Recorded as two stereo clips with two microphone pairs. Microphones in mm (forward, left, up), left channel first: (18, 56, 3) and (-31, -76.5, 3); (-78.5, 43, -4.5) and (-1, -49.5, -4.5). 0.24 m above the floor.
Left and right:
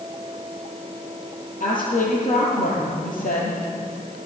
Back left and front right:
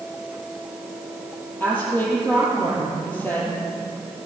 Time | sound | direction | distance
1.6 | a woman speaking | 55° left | 6 m